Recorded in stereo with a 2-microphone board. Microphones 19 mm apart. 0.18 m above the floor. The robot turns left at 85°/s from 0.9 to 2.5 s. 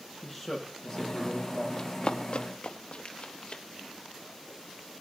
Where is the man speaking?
5° left, 6 m; by 1.7 s 60° right, 6 m.